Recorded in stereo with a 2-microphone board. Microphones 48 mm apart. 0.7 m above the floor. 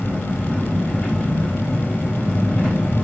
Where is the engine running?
25° left (ahead or behind), 4 m.